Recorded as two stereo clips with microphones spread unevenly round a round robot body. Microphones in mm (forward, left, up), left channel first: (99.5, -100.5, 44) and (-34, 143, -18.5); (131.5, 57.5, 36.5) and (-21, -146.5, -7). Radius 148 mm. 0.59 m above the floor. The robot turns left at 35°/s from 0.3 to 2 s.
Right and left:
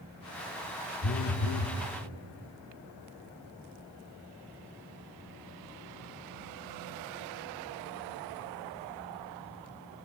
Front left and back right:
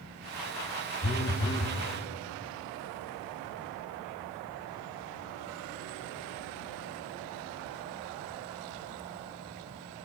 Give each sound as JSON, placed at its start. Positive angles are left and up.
{"t": 1.0, "sound": "a phone buzzing", "azimuth_deg": -10, "distance_m": 0.7}